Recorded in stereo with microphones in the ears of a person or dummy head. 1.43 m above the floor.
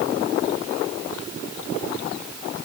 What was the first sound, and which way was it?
Only background noise.